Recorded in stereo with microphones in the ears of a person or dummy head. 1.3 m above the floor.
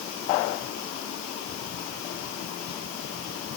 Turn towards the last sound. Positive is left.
No sound to turn to.